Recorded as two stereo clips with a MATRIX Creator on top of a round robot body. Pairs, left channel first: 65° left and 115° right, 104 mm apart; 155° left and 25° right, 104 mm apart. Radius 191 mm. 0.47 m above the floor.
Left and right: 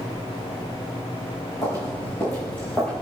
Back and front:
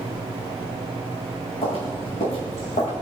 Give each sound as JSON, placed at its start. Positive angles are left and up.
{"t": 1.6, "sound": "footsteps", "azimuth_deg": 125, "distance_m": 3.0}